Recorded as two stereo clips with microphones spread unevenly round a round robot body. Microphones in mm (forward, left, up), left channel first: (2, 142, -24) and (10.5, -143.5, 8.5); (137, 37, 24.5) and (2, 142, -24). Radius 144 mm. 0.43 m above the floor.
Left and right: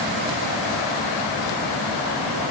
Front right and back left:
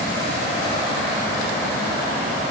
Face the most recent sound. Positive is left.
No sound to turn to.